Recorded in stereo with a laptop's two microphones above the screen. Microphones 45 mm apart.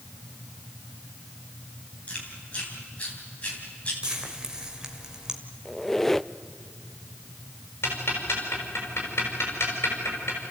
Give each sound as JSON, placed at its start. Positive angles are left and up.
{"t": 2.1, "sound": "chewing", "side_deg": 30, "distance_m": 3.5}
{"t": 4.0, "sound": "frying", "side_deg": -15, "distance_m": 1.3}
{"t": 5.7, "sound": "a squeak", "side_deg": 5, "distance_m": 0.5}
{"t": 7.8, "sound": "ticking", "side_deg": 60, "distance_m": 5.5}